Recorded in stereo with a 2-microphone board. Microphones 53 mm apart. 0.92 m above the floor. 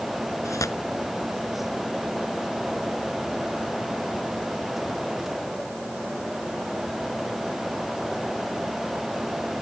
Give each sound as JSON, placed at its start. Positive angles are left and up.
{"t": 0.5, "sound": "tearing paper", "side_deg": 80}